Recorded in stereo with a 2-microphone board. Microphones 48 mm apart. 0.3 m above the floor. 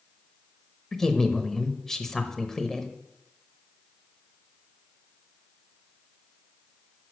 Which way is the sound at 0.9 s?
10° left (ahead or behind).